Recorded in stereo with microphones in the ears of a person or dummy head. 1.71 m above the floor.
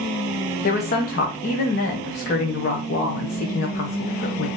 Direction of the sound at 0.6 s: 50° left (ahead or behind).